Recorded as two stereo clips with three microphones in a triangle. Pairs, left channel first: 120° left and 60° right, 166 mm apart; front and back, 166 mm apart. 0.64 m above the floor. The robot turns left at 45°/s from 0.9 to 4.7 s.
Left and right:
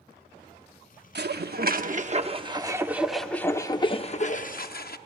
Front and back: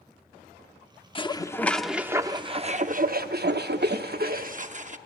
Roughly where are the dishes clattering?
Ahead right.